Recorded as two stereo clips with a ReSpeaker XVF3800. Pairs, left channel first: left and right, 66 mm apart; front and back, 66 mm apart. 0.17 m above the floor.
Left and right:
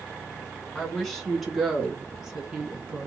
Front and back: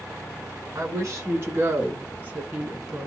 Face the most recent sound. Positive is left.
turn(degrees=-120)